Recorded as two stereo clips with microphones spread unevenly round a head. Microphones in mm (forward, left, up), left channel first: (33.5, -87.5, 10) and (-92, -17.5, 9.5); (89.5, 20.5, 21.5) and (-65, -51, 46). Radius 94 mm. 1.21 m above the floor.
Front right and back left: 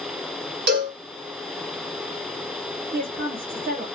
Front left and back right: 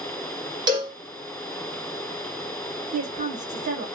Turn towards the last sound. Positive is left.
turn(degrees=155)